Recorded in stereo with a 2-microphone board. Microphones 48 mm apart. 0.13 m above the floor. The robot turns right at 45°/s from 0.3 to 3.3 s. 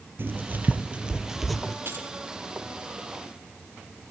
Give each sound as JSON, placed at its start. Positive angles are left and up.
{"t": 0.2, "sound": "writing", "side_deg": -50, "distance_m": 2.5}
{"t": 1.9, "sound": "keys jangling", "side_deg": -55, "distance_m": 3.5}